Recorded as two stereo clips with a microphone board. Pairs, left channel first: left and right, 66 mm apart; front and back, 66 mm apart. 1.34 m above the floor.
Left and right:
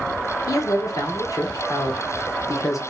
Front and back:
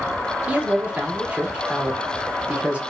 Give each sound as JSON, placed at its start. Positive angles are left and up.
{"t": 0.5, "sound": "a man speaking", "azimuth_deg": 110, "distance_m": 0.8}